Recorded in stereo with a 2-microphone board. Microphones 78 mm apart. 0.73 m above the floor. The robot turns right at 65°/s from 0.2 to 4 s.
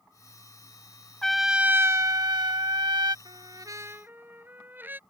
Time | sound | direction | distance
1.2 | a trumpet | 170° left | ?
3.2 | a trumpet | 75° right | ?